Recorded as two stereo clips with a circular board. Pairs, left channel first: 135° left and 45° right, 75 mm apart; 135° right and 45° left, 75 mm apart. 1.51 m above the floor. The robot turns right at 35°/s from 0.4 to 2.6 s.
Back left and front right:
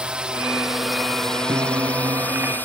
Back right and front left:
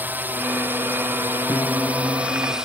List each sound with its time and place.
0.0 s a drone: 20° left; by 2.6 s 115° left
1.5 s a piano: 80° right; by 2.5 s 45° right